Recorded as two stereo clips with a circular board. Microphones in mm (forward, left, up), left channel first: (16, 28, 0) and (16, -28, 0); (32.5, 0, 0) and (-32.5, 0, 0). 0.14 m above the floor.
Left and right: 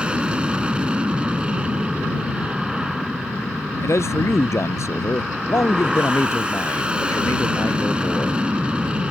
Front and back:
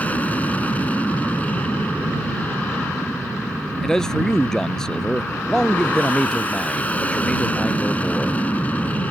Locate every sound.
0.0 s an aircraft: 40° right
3.8 s a man speaking: 80° left